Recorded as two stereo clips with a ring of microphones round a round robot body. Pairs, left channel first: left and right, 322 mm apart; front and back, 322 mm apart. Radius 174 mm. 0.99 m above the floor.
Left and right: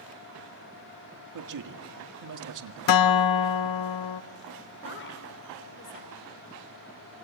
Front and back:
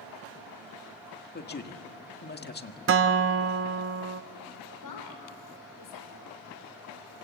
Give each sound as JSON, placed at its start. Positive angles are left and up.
{"t": 1.3, "sound": "a man speaking", "azimuth_deg": -60, "distance_m": 1.8}
{"t": 2.9, "sound": "a guitar", "azimuth_deg": 125, "distance_m": 0.5}
{"t": 4.8, "sound": "a woman speaking", "azimuth_deg": 40, "distance_m": 4.0}